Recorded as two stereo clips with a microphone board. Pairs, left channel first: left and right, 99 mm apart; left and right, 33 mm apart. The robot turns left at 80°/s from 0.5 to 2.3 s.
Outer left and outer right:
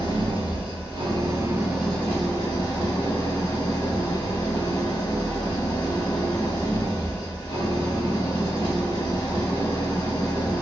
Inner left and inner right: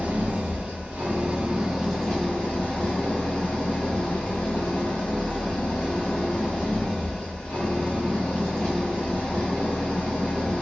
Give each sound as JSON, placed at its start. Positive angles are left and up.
{"t": 0.0, "sound": "an engine running", "azimuth_deg": -75, "distance_m": 1.8}